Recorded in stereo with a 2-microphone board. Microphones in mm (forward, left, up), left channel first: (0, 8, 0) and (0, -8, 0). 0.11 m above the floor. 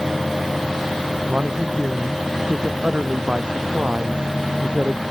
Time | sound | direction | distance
1.3 | a man speaking | 80° right | ?